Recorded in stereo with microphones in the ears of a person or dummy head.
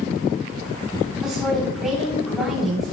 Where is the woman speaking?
5° right (ahead or behind), 3.5 m.